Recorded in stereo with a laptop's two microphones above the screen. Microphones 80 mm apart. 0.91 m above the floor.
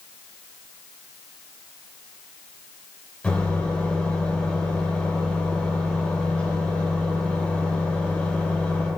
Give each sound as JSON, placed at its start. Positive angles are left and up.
{"t": 3.2, "sound": "a microwave", "side_deg": 15, "distance_m": 2.5}